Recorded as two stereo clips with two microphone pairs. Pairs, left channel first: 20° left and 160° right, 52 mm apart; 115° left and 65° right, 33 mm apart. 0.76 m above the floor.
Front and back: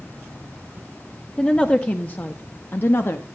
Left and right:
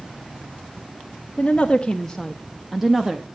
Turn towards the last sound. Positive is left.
turn(degrees=5)